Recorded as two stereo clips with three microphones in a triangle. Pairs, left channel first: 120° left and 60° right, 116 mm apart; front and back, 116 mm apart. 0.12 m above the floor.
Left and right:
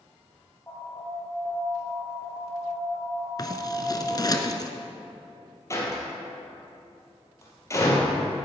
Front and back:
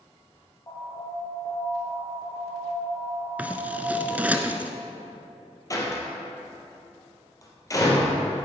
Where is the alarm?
50° left, 3 m.